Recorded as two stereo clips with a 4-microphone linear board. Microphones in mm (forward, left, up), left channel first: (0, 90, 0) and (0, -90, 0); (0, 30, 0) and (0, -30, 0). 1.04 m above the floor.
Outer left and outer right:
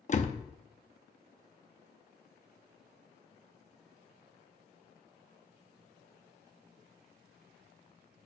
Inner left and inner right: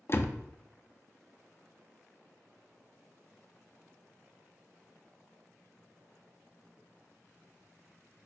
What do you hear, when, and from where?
0.1 s a door slam: 45° left (ahead or behind), 0.8 m